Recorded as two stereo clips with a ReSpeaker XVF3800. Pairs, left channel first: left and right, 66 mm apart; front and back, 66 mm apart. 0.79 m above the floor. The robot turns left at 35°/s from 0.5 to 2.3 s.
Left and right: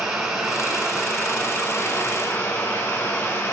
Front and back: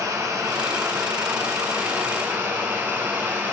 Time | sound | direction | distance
0.0 | running water | 170° right | 1.1 m